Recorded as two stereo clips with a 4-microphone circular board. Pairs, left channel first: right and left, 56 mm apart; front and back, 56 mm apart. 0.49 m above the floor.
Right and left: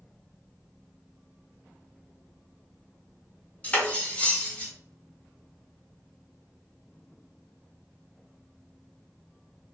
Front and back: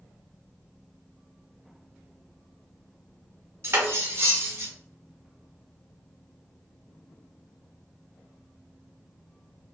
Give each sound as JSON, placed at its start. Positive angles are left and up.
{"t": 3.6, "sound": "cutlery clinking", "azimuth_deg": -150, "distance_m": 0.7}